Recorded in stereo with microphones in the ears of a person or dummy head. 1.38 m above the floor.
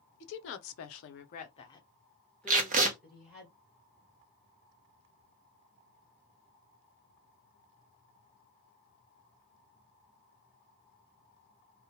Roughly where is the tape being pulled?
Right.